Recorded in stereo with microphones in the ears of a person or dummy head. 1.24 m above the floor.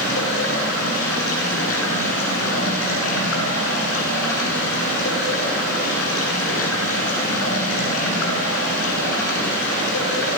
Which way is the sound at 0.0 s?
85° left.